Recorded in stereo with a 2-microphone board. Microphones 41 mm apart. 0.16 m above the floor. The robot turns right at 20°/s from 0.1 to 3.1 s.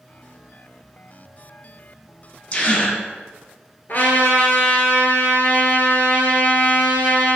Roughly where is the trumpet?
Left.